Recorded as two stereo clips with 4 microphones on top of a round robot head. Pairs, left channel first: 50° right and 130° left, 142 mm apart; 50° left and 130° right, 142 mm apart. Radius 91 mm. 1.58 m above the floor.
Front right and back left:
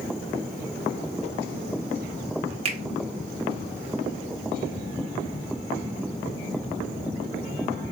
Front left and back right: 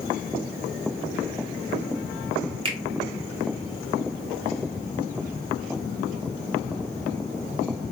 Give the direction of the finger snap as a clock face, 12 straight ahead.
6 o'clock.